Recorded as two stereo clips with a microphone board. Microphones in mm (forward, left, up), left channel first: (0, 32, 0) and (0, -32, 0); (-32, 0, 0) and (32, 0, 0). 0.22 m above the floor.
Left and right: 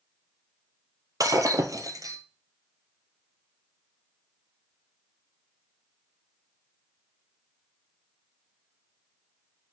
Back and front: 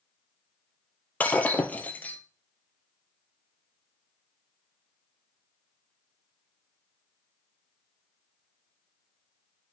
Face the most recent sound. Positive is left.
turn(degrees=-115)